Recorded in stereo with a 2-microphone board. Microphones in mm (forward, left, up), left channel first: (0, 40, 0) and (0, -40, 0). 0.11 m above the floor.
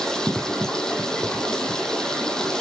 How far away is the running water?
About 4.5 m.